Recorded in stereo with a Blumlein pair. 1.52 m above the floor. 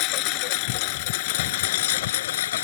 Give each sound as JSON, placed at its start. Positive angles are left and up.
{"t": 0.0, "sound": "a lawn mower", "azimuth_deg": 40}